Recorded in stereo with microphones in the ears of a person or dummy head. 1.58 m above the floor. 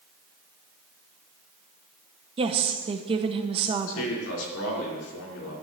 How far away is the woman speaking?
About 1.0 m.